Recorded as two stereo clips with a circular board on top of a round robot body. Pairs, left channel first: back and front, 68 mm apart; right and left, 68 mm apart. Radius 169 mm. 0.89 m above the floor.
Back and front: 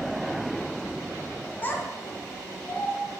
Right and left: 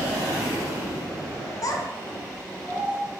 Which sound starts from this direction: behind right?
A child speaking, at 1.6 s.